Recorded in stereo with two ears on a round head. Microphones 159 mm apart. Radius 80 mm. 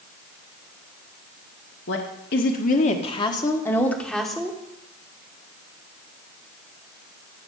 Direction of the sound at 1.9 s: 70° left (ahead or behind).